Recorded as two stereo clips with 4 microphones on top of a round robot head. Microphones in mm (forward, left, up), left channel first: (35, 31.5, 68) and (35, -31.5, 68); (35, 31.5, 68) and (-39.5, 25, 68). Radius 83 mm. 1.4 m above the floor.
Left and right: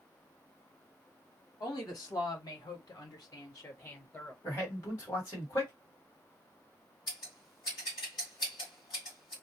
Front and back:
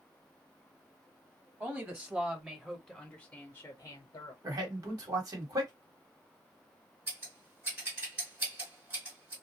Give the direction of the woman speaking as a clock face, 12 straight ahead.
8 o'clock.